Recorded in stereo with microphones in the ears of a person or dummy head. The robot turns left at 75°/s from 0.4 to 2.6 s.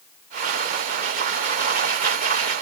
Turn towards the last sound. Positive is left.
No sound to turn to.